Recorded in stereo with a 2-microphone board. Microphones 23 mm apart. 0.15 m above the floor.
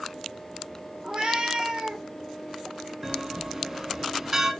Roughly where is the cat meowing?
Right.